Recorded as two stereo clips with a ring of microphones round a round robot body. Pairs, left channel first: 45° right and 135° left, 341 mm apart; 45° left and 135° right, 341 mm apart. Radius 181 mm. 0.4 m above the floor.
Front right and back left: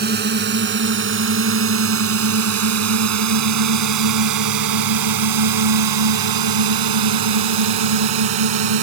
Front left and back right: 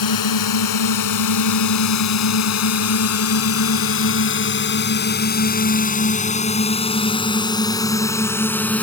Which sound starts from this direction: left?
A drone, at 0.0 s.